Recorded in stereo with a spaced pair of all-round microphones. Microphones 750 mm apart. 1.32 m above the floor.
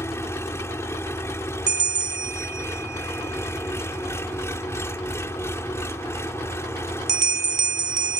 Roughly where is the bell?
Right.